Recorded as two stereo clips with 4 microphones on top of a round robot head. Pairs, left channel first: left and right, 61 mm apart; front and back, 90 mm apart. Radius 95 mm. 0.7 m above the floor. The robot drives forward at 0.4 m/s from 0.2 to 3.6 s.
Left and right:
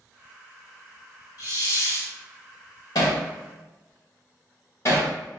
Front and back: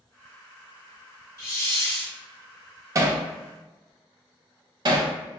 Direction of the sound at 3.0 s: 130° left.